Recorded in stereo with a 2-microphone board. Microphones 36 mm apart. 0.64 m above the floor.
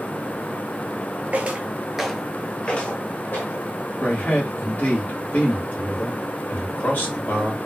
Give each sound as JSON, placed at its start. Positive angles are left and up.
{"t": 1.3, "sound": "footsteps", "side_deg": -45, "distance_m": 0.8}
{"t": 4.0, "sound": "a man speaking", "side_deg": 55, "distance_m": 1.4}